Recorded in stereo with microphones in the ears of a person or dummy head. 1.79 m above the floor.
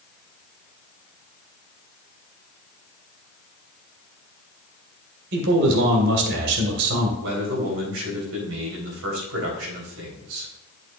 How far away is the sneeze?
No sneeze in this recording.